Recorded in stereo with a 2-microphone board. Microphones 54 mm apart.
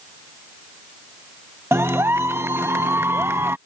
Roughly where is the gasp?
No gasp in this recording.